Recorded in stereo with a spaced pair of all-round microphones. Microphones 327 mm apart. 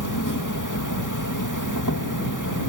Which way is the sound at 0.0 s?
70° left (ahead or behind).